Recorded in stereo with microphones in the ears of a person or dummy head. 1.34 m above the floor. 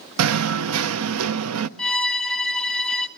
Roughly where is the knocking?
Right.